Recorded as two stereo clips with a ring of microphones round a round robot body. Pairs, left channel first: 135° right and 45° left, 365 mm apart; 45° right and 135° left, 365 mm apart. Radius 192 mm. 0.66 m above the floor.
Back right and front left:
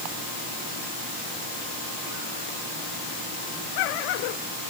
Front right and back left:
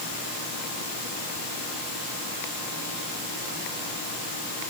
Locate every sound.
Only background noise.